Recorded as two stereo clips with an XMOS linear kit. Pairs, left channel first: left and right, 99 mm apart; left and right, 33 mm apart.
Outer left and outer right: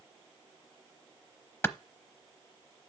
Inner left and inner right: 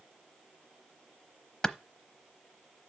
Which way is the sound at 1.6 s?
25° left (ahead or behind).